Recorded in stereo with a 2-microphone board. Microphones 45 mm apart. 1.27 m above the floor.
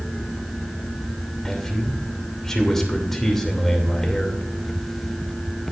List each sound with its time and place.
1.4 s a man speaking: 10° left (ahead or behind), 2.5 m